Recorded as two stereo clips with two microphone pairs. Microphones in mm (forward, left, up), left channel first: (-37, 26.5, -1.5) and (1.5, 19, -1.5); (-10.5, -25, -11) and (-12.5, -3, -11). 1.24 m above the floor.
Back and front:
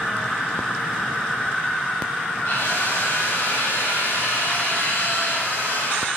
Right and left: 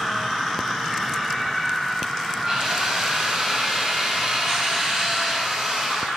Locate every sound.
2.5 s a drill: 160° left, 8.5 m